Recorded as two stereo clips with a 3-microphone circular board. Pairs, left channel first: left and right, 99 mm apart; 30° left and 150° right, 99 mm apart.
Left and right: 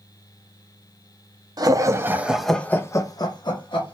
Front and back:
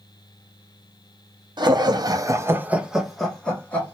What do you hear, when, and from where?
1.6 s laughter: 125° right, 0.7 m; by 4.0 s 100° left, 1.0 m